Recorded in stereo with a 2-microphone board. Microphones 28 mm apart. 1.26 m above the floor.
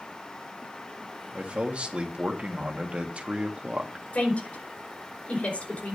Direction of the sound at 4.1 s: 55° left (ahead or behind).